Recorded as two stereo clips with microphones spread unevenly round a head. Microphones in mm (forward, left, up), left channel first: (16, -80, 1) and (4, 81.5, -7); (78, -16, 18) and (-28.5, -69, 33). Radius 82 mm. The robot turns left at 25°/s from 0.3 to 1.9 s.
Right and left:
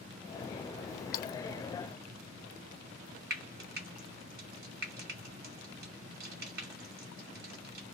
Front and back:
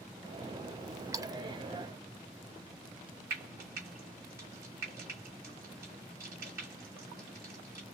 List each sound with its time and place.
1.1 s a splash: 100° right, 0.7 m; by 1.4 s 105° right, 0.7 m
3.3 s frying: 130° left, 2 m